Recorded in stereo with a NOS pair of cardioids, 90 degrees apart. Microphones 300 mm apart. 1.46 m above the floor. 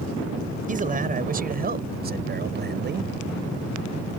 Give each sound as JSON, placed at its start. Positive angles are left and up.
{"t": 0.7, "sound": "a man speaking", "azimuth_deg": -25}